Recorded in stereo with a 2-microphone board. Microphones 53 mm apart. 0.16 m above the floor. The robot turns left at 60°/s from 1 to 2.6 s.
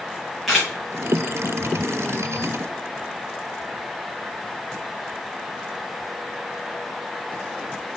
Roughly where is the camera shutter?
Centre.